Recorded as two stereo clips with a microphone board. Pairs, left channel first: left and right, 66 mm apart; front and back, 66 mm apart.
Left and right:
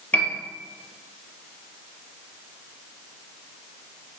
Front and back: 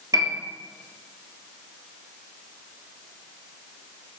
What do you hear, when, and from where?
0.1 s a piano: 155° left, 1.0 m